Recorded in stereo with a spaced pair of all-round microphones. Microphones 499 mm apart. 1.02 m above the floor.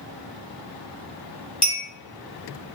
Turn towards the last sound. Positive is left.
turn(degrees=50)  # may be behind; listen again after turning